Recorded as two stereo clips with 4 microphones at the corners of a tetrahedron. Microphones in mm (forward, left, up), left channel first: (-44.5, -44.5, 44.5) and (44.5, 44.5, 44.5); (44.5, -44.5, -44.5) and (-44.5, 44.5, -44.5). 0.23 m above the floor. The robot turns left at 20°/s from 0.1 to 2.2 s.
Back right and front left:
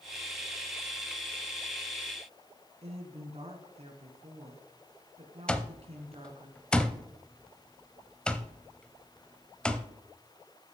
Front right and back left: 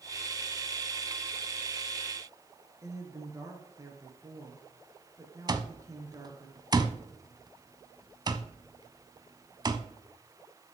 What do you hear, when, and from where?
2.8 s a woman speaking: 75° left, 2.5 m
5.5 s an alarm clock: 150° left, 0.7 m